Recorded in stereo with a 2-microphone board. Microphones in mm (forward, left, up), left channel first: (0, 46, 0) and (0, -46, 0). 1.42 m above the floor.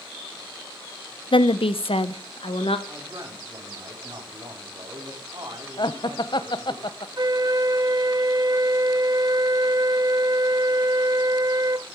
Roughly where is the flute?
Right.